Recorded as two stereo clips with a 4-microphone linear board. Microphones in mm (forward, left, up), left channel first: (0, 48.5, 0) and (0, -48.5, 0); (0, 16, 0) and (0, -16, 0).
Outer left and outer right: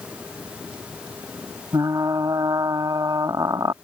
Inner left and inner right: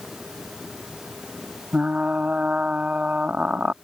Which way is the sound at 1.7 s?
40° right (ahead or behind).